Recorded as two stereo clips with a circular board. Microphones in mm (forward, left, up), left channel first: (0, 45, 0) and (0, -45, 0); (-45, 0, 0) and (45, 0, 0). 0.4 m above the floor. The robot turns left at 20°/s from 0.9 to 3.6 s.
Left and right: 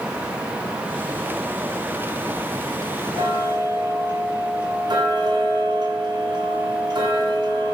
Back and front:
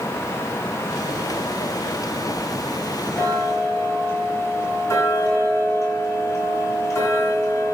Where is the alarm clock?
I don't hear an alarm clock.